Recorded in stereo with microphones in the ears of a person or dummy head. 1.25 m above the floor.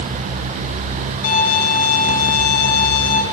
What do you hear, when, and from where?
1.2 s a violin: 45° left (ahead or behind), 2.5 m